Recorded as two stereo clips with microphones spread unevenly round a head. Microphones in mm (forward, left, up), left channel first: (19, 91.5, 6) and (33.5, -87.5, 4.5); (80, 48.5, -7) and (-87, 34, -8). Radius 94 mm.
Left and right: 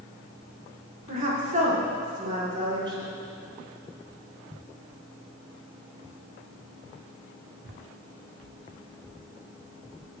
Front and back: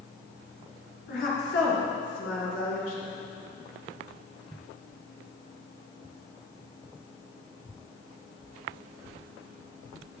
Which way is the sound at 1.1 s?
40° right.